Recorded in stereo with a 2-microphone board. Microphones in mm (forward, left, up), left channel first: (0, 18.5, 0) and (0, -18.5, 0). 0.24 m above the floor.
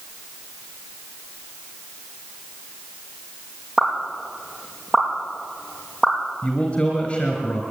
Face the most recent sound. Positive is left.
turn(degrees=20)  # may be behind; listen again after turning